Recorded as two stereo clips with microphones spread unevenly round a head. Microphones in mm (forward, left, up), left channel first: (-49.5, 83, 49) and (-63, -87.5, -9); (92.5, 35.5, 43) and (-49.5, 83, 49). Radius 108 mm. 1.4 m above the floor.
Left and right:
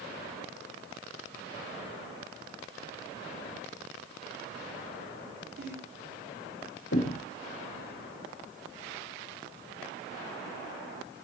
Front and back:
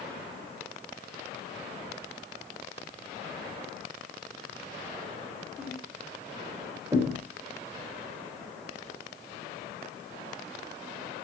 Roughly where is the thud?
Left.